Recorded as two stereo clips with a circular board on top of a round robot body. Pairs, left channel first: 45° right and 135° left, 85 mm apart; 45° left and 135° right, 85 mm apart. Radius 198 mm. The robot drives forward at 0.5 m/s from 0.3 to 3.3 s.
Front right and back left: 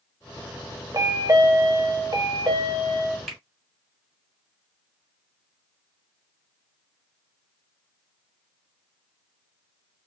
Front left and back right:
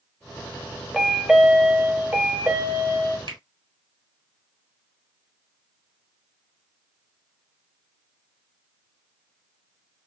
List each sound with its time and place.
0.9 s a chime: 140° left, 0.9 m; by 3.2 s 165° left, 1.7 m
3.3 s a finger snap: 135° right, 1.8 m